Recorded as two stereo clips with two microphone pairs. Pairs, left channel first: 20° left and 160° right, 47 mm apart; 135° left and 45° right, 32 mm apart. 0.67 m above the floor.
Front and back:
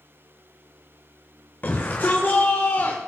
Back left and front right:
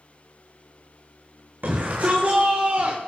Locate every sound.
1.6 s a shout: 20° right, 3 m; by 3.0 s 5° right, 2 m